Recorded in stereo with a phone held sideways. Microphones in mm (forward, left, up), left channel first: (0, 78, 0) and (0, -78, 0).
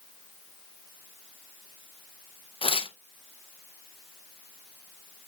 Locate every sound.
2.6 s tearing paper: 35° left (ahead or behind), 0.5 m